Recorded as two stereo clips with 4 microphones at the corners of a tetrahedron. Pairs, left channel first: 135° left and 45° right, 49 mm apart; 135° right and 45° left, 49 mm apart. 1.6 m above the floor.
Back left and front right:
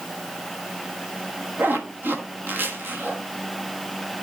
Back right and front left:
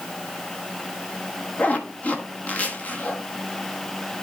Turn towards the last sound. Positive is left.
turn(degrees=-80)